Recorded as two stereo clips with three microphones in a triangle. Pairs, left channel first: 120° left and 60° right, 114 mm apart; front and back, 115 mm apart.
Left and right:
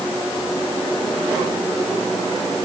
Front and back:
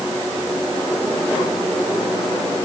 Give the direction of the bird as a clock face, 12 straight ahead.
No bird in this recording.